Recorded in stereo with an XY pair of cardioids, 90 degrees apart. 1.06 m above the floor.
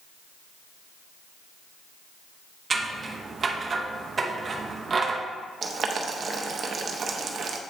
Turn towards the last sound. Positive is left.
turn(degrees=-55)